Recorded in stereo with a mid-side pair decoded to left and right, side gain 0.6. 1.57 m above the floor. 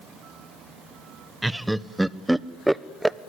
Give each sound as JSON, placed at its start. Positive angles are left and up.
{"t": 1.4, "sound": "laughter", "azimuth_deg": -5, "distance_m": 1.0}